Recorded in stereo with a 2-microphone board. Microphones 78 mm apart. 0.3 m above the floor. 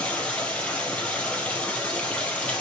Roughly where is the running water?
Centre.